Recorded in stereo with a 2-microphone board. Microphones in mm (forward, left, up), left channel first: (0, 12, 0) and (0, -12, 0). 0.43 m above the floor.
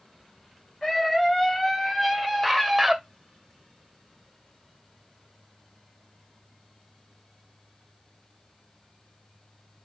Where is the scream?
20° left (ahead or behind), 3 m; by 3.0 s centre (ahead or behind), 1.9 m.